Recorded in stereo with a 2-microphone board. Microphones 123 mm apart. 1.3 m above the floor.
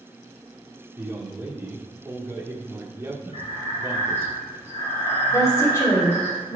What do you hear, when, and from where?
1.0 s a man speaking: 20° right (ahead or behind), 1.2 m
3.3 s breathing: 60° left (ahead or behind), 3 m
5.3 s a woman speaking: 35° left (ahead or behind), 2 m